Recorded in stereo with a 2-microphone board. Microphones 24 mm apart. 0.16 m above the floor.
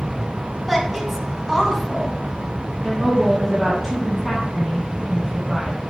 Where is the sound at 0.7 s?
5° right (ahead or behind), 1.1 m.